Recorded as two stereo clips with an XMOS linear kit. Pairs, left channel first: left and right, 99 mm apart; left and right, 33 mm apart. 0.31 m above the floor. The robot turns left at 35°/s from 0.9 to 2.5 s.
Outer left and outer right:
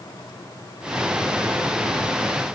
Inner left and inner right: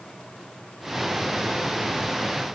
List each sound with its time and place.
Only background noise.